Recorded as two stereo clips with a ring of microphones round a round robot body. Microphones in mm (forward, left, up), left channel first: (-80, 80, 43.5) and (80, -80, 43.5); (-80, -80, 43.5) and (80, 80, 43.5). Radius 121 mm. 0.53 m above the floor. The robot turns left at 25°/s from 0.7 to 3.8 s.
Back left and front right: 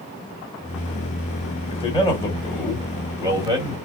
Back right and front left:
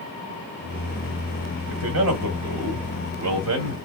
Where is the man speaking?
70° left, 1.7 m; by 3.8 s 15° left, 1.7 m.